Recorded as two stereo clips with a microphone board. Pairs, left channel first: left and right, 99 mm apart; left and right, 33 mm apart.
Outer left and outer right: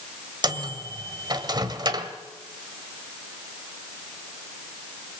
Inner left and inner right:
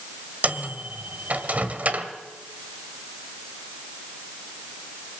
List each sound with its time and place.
0.4 s a microwave: 45° right (ahead or behind), 1.6 m